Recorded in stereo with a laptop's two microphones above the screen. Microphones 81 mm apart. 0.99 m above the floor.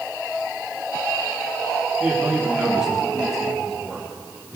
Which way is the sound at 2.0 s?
15° right (ahead or behind).